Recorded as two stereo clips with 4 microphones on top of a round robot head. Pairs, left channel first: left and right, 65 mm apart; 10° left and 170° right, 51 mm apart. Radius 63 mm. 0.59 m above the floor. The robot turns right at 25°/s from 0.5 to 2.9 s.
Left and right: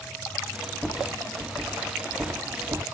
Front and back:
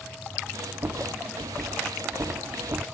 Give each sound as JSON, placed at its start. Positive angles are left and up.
{"t": 0.8, "sound": "a rattle", "azimuth_deg": 175, "distance_m": 1.7}